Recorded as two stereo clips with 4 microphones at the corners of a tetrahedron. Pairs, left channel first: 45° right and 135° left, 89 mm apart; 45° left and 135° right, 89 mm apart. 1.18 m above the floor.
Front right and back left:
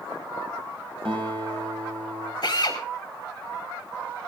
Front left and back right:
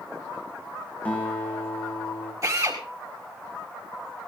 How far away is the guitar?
About 6 m.